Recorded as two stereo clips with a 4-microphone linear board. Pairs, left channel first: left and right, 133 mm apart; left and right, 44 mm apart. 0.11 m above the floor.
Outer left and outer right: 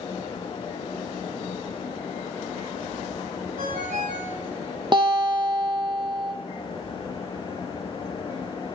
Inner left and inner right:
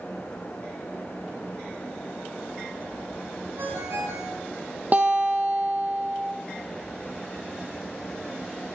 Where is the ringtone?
80° right, 5 m.